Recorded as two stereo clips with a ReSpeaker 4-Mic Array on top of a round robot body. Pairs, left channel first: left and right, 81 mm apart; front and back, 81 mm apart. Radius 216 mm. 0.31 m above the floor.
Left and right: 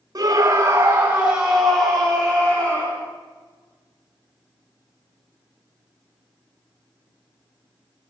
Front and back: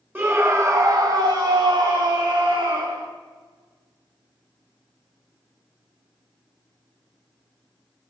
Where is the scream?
115° right, 2.0 m; by 3.1 s 155° left, 3.5 m.